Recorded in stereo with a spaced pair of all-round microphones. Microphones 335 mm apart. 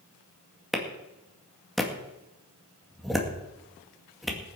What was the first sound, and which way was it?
A clap, centre (ahead or behind).